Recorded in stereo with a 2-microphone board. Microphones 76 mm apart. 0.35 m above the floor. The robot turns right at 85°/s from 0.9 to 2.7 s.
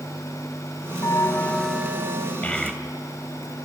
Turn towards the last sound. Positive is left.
turn(degrees=0)  # may be behind; listen again after turning